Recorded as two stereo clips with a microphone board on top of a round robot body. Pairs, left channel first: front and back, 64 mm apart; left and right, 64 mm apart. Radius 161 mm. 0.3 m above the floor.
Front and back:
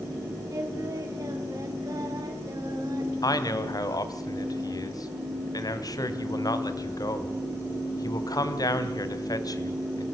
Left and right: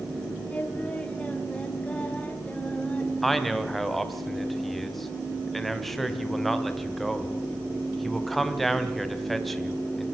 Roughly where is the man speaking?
Ahead.